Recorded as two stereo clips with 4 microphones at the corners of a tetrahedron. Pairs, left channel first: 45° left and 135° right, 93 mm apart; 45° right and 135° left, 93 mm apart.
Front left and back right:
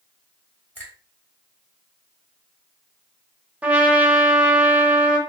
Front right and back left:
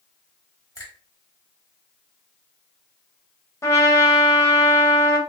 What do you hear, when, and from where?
0.8 s a finger snap: 15° right, 1.5 m
3.6 s a trumpet: 70° right, 0.7 m